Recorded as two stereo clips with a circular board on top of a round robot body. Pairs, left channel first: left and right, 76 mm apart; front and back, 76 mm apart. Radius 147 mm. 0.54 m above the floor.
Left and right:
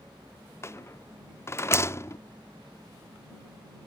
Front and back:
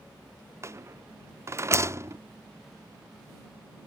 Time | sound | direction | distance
0.6 | a rattle | 140° left | ?